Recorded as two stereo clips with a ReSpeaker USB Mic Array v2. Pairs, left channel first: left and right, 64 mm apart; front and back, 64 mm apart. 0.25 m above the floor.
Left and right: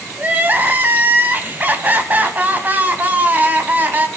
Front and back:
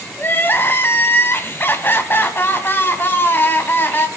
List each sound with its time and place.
0.2 s crying: 35° right, 1.5 m